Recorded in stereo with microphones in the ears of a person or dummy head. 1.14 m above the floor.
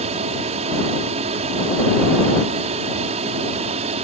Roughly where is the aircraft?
Right.